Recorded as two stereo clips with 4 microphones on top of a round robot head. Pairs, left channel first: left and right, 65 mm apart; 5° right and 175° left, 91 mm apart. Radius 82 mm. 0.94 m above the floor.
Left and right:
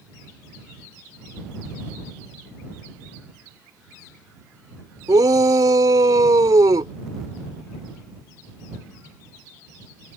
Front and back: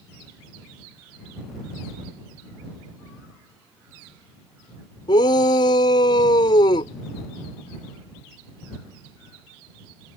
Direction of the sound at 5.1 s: 50° right.